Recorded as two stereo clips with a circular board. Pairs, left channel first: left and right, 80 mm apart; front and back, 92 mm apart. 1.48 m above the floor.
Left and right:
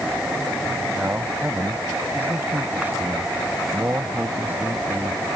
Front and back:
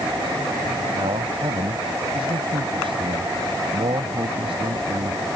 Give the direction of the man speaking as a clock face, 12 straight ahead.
5 o'clock.